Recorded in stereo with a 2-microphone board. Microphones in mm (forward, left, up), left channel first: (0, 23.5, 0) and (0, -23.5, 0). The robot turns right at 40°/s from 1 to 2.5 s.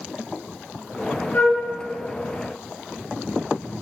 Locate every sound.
1.3 s a flute: 35° left (ahead or behind), 3 m; by 1.6 s 45° left (ahead or behind), 3 m